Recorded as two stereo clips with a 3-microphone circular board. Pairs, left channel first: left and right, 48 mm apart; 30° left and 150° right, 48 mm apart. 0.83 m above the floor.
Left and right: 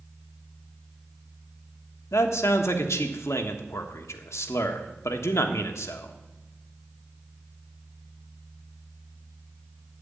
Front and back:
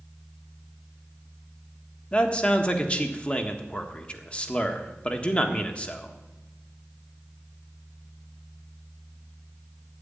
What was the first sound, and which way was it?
A man speaking, 95° left.